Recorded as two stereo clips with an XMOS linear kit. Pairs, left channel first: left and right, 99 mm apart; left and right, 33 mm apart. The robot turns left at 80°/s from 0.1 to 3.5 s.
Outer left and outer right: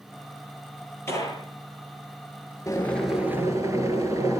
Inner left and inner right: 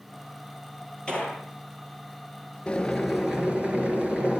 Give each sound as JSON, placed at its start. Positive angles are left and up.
{"t": 1.1, "sound": "a gunshot", "side_deg": 25, "distance_m": 10.0}
{"t": 2.7, "sound": "boiling", "azimuth_deg": 35, "distance_m": 7.5}